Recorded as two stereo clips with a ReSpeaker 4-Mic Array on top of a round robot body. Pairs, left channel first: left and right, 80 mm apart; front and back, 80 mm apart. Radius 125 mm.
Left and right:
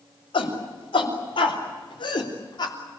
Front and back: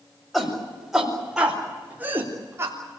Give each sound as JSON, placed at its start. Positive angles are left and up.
{"t": 0.3, "sound": "a shout", "azimuth_deg": 85, "distance_m": 6.0}